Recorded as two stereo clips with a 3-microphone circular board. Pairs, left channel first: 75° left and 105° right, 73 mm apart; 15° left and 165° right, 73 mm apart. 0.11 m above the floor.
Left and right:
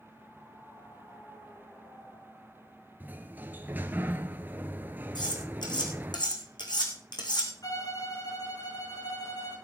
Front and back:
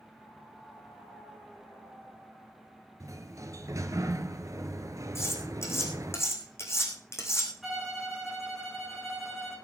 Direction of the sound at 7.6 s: 110° left.